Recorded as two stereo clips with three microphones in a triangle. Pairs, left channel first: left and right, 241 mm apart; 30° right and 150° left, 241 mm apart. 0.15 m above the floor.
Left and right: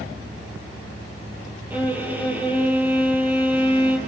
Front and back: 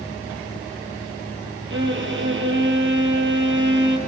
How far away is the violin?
About 3 m.